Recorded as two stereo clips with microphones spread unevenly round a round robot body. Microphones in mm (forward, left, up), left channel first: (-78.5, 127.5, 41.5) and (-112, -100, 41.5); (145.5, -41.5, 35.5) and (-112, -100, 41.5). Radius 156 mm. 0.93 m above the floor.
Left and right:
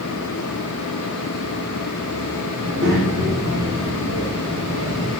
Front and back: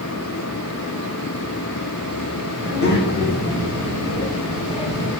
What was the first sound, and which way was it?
A child speaking, 35° right.